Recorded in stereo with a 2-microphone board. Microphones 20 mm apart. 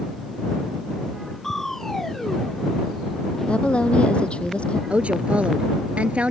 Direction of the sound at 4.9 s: 75° right (ahead or behind).